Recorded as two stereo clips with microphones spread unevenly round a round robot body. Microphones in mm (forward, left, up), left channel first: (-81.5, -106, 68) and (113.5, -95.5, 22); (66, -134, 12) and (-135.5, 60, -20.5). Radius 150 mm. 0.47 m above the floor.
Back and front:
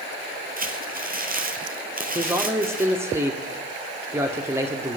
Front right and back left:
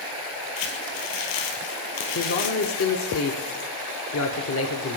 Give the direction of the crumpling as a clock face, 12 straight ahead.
1 o'clock.